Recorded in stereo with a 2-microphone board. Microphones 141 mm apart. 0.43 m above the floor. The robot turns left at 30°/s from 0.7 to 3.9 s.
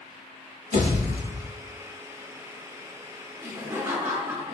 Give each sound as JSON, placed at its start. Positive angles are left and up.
{"t": 0.7, "sound": "a pop", "side_deg": -65, "distance_m": 1.1}
{"t": 3.4, "sound": "laughter", "side_deg": -20, "distance_m": 0.7}